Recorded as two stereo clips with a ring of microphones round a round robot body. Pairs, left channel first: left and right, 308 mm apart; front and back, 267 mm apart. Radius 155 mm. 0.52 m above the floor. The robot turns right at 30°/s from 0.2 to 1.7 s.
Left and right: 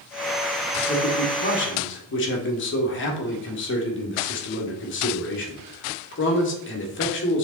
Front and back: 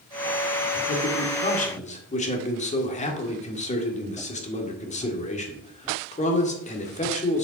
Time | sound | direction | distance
0.9 | a man speaking | 30° left | 1.6 m